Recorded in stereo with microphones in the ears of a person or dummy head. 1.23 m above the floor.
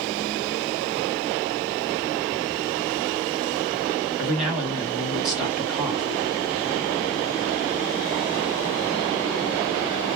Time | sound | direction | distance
4.2 | a man speaking | centre (ahead or behind) | 2 m